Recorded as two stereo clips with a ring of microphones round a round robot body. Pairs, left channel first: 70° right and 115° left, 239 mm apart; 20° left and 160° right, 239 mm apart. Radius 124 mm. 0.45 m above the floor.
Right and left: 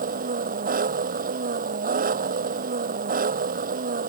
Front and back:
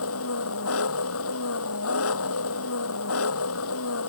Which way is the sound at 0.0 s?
55° left.